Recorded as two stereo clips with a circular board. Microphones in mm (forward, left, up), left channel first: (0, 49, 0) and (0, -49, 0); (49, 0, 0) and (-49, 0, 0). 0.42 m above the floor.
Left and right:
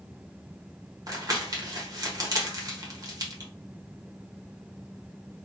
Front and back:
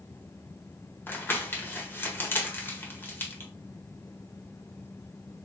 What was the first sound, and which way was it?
Crumpling, 60° right.